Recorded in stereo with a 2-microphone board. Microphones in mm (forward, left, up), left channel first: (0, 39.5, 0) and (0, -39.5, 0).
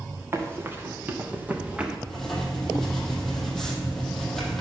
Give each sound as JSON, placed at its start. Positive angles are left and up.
{"t": 0.3, "sound": "running footsteps", "side_deg": -30, "distance_m": 3.0}
{"t": 2.1, "sound": "writing", "side_deg": 5, "distance_m": 3.5}